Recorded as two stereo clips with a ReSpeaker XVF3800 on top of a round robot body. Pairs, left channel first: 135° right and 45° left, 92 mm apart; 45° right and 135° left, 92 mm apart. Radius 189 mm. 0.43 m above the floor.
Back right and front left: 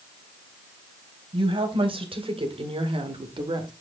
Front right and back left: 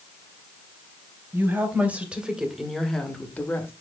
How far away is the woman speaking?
About 3 m.